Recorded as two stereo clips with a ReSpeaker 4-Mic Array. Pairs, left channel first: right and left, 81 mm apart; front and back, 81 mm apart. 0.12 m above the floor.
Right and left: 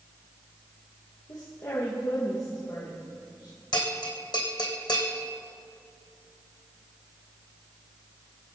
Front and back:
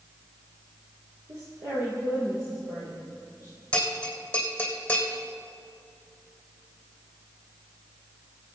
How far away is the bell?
About 3 m.